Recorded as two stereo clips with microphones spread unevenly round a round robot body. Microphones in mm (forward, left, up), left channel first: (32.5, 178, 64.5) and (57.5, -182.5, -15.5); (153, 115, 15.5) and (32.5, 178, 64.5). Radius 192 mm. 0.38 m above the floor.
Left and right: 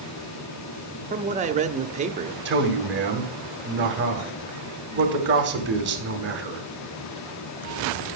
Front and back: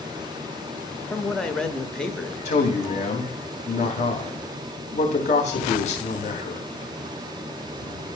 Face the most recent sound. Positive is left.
turn(degrees=-30)